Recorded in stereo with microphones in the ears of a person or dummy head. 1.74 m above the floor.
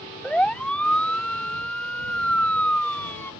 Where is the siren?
5° left (ahead or behind); by 3.3 s 10° left (ahead or behind).